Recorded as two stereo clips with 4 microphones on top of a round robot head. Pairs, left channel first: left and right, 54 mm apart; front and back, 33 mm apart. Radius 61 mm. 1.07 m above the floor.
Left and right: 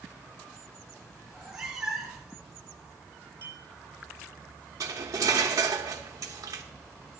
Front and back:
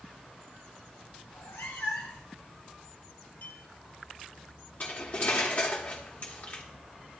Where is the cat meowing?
10° right, 1.8 m.